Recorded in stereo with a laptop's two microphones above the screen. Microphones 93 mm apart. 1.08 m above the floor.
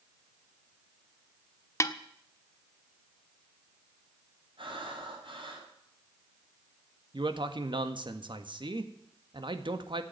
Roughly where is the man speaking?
Right.